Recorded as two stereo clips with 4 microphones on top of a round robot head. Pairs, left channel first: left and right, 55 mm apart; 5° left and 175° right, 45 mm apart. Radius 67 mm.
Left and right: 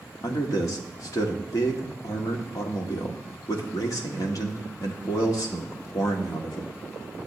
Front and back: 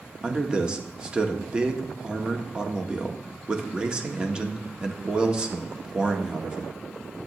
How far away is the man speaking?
About 1.7 m.